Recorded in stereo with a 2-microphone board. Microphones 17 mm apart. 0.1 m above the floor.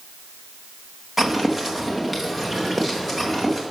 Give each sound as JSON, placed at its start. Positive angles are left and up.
{"t": 1.2, "sound": "footsteps", "side_deg": -20, "distance_m": 1.4}